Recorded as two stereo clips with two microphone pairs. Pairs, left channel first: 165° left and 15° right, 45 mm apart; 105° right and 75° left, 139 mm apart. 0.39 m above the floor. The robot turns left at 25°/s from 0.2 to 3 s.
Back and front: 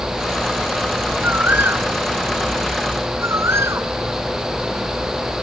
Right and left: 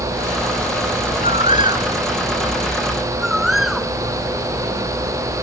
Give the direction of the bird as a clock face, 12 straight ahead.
11 o'clock.